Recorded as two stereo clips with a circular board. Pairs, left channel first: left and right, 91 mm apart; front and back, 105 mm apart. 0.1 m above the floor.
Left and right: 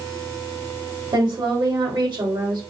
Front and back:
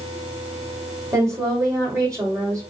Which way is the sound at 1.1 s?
125° right.